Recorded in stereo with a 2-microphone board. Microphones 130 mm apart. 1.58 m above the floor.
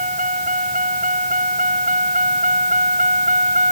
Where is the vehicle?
85° right; by 3.7 s 75° right (ahead or behind).